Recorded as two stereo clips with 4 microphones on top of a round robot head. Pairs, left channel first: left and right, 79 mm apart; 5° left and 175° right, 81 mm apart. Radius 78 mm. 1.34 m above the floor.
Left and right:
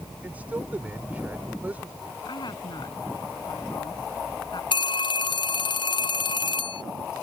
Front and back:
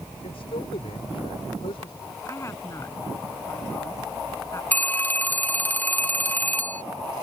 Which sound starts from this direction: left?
A phone ringing, at 4.7 s.